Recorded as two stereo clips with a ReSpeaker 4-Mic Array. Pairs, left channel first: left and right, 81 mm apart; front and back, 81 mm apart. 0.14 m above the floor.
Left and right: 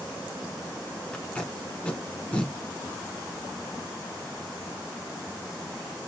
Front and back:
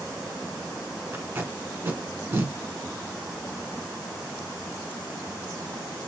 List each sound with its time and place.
1.1 s tape being pulled: 150° left, 0.9 m